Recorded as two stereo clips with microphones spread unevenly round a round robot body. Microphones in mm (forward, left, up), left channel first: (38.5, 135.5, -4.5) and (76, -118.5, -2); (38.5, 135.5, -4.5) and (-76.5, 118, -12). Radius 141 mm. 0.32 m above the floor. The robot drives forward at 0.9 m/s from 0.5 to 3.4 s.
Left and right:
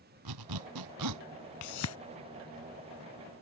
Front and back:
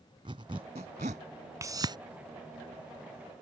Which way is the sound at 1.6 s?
125° left.